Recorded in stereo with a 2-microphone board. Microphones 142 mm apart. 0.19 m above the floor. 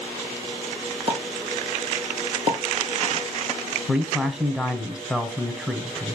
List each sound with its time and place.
1.1 s a pop: 40° right (ahead or behind), 1.2 m
3.9 s a man speaking: 5° right (ahead or behind), 1.0 m